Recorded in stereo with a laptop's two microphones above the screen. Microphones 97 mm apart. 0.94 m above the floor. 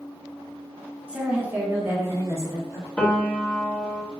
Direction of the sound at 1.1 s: 10° right (ahead or behind).